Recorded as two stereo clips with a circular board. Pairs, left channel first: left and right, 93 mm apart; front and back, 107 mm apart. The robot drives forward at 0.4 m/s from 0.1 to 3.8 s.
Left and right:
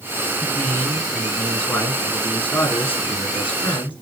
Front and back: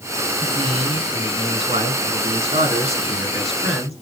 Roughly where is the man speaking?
Behind left.